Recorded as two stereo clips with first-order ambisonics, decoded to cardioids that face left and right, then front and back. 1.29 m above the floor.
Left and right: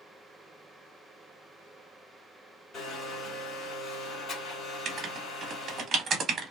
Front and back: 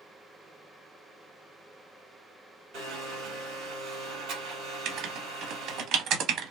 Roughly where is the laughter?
I don't hear laughter.